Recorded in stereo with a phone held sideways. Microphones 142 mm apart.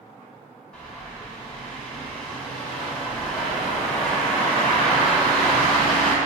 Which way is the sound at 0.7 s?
5° left (ahead or behind).